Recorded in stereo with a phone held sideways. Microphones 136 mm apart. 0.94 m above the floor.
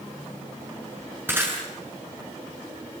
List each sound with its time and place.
1.3 s breaking glass: 15° right (ahead or behind), 7 m